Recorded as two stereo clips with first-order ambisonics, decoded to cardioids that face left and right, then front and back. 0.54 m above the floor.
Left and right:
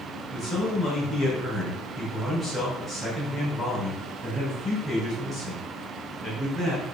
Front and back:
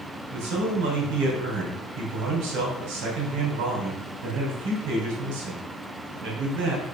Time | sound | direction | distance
0.3 | a man speaking | 160° left | 3.5 m